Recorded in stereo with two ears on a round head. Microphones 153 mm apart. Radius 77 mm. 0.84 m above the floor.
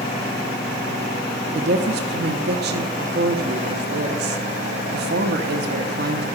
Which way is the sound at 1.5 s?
65° right (ahead or behind).